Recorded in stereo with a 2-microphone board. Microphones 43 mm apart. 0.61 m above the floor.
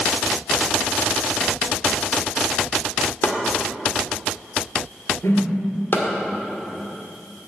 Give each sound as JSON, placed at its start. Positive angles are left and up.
{"t": 3.2, "sound": "chopping", "side_deg": 55, "distance_m": 2.0}
{"t": 5.2, "sound": "a whoosh", "side_deg": 70, "distance_m": 3.5}